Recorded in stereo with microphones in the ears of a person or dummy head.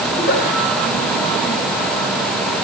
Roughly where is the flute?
No flute in this recording.